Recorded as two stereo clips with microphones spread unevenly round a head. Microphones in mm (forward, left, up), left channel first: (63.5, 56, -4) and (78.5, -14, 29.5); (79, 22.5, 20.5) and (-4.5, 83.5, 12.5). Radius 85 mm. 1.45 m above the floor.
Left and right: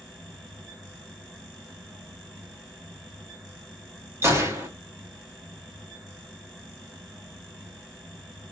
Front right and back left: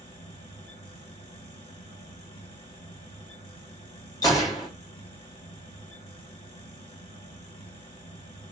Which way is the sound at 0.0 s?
30° right.